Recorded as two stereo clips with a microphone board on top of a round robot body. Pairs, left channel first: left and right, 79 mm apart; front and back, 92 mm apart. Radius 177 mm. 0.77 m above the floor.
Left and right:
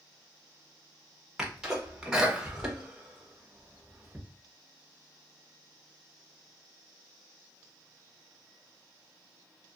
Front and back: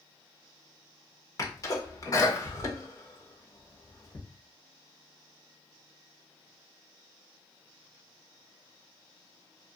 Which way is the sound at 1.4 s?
15° right.